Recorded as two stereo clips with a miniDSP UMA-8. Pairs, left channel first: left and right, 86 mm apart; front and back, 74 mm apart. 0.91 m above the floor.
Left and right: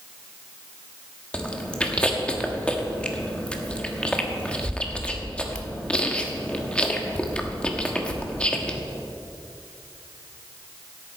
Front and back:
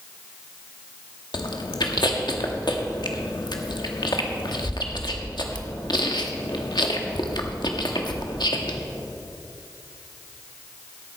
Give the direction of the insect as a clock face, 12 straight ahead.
No insect in this recording.